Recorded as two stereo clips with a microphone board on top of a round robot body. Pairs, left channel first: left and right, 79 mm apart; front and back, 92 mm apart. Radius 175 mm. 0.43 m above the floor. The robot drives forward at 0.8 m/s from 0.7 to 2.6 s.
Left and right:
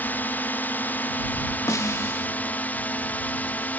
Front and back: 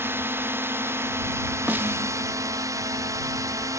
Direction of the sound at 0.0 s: 140° left.